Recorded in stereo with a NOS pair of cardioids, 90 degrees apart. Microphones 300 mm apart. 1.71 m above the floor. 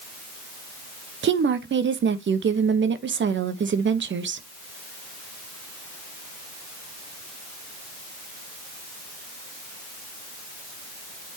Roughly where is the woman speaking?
Ahead right.